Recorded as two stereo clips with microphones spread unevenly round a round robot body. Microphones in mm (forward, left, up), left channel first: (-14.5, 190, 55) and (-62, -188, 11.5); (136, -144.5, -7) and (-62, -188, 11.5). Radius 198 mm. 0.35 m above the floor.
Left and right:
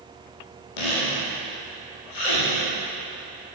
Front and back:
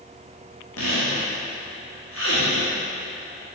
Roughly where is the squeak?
Ahead left.